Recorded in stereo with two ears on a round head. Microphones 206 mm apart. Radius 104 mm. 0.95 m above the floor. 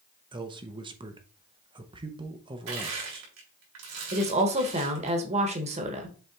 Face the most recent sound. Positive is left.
turn(degrees=-30)  # may be behind; listen again after turning